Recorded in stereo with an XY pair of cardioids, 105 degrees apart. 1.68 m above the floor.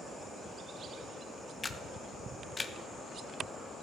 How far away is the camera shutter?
About 0.8 m.